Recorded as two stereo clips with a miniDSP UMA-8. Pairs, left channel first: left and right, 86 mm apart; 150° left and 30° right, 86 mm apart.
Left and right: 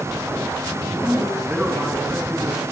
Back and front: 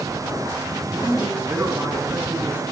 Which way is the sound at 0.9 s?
30° right.